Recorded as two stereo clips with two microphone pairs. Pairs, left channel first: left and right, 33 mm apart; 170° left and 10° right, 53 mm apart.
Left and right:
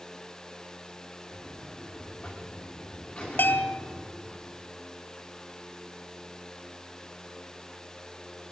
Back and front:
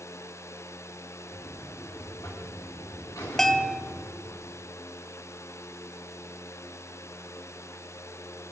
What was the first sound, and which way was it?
A buzzer, 150° left.